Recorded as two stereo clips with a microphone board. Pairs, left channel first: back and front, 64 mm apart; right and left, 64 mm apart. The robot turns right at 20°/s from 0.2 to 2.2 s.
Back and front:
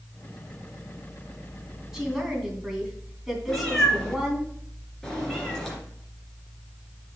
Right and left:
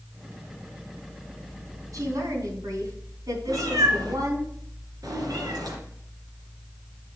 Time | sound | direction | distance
1.9 | a woman speaking | 80° left | 3 m
3.5 | a cat meowing | 100° left | 3 m